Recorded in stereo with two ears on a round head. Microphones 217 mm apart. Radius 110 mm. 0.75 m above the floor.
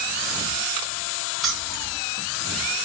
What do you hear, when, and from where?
1.4 s keys jangling: centre (ahead or behind), 1.3 m